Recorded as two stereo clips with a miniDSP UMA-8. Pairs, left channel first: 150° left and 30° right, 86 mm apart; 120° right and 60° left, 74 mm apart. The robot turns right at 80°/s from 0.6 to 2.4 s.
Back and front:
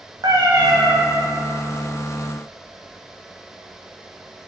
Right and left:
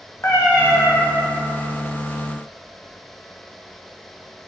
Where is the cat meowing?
75° right, 2.5 m; by 1.0 s 40° right, 2.5 m.